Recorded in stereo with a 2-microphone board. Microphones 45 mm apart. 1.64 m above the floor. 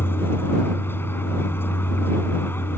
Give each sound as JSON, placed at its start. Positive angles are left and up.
{"t": 0.0, "sound": "a vehicle", "side_deg": 55}